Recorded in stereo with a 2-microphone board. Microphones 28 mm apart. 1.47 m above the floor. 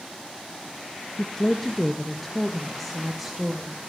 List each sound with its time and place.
1.2 s a woman speaking: 30° left (ahead or behind), 0.8 m; by 3.8 s 5° right (ahead or behind), 1.9 m